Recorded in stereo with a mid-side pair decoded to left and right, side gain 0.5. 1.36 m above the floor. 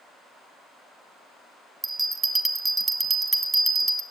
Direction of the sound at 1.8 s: 25° right.